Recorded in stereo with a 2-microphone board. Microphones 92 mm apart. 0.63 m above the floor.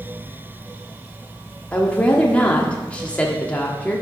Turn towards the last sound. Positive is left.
turn(degrees=15)  # may be behind; listen again after turning